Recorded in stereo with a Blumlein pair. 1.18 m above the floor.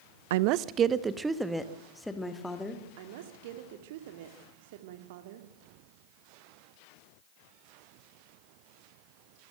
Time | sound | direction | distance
0.3 | a woman speaking | 55° right | 0.7 m
3.0 | a woman speaking | 50° right | 2 m